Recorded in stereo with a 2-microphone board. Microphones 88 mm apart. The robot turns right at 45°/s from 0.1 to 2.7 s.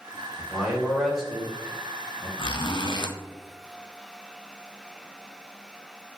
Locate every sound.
0.4 s a man speaking: 10° right (ahead or behind), 1.5 m; by 2.3 s 15° left (ahead or behind), 1.5 m
2.4 s a zipper: 65° left (ahead or behind), 0.5 m